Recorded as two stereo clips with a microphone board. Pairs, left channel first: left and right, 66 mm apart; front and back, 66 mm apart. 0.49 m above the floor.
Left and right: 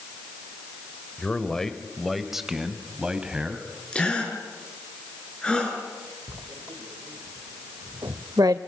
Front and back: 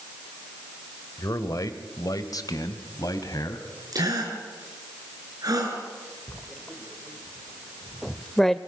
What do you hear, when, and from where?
1.2 s a man speaking: 15° left, 1.5 m; by 3.7 s 15° right, 2.5 m
3.9 s a gasp: 165° left, 5 m
6.3 s writing: 85° right, 0.9 m